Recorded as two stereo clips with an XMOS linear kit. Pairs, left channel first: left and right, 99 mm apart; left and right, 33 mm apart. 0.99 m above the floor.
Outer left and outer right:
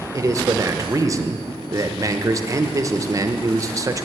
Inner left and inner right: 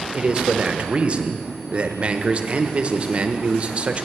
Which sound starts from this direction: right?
A man speaking, at 0.1 s.